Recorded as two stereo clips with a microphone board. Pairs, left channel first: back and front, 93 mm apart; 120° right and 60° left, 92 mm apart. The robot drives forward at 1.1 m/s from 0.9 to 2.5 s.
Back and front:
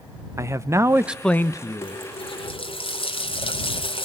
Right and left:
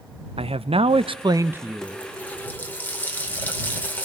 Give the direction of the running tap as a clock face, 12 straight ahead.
7 o'clock.